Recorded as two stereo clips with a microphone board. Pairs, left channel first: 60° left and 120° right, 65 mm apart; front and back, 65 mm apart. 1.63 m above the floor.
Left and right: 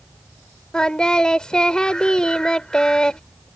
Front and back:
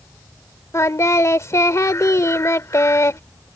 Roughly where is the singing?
Ahead.